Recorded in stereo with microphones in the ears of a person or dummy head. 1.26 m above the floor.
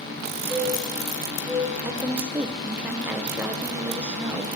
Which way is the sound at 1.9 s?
10° right (ahead or behind).